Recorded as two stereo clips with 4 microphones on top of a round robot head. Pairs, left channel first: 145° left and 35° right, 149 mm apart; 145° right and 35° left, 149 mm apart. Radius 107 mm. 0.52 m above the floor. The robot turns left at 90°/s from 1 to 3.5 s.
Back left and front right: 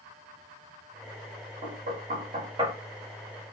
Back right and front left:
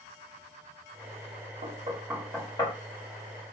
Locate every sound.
1.6 s knocking: straight ahead, 1.4 m; by 2.7 s 100° right, 1.4 m